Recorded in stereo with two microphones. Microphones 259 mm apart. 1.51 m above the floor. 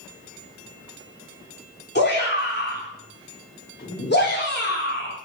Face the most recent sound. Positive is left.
turn(degrees=40)  # may be behind; listen again after turning